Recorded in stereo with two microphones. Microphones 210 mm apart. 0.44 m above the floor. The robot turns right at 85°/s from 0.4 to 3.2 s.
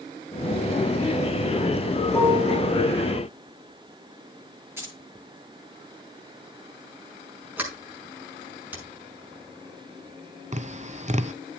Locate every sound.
2.1 s a piano: straight behind, 3 m; by 2.6 s 140° right, 3 m
4.8 s keys jangling: 10° right (ahead or behind), 6 m
7.6 s a sliding door: 10° right (ahead or behind), 5.5 m
10.5 s tapping: 35° right (ahead or behind), 0.7 m